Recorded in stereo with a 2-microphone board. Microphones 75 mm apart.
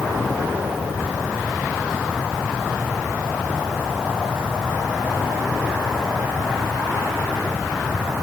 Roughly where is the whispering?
I don't hear whispering.